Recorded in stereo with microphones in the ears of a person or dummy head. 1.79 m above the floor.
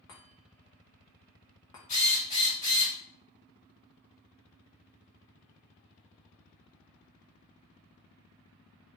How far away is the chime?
About 0.5 m.